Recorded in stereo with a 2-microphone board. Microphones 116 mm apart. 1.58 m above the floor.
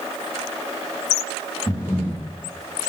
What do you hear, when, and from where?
1.7 s breathing: 30° left (ahead or behind), 2.5 m